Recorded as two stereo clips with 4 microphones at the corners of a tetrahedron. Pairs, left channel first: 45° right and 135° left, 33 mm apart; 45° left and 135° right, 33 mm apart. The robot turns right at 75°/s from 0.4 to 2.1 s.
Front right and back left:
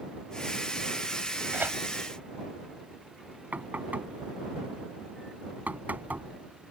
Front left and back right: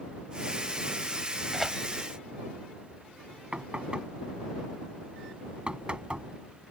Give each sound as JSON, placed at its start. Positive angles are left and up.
{"t": 1.5, "sound": "tearing paper", "azimuth_deg": 140}
{"t": 3.5, "sound": "knocking", "azimuth_deg": 170}